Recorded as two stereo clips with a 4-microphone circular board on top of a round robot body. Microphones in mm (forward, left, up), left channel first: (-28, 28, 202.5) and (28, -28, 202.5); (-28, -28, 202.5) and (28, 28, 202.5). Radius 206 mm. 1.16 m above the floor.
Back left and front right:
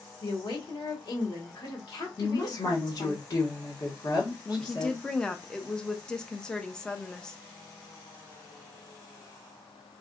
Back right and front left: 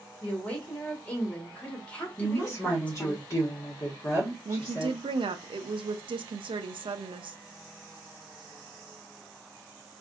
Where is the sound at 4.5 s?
55° left, 0.6 m.